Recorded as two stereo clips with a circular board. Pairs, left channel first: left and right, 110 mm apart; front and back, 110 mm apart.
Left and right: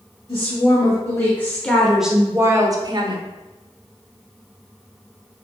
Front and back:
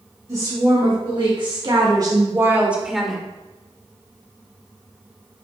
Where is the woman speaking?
145° left, 2.5 m; by 3.2 s 85° right, 1.4 m.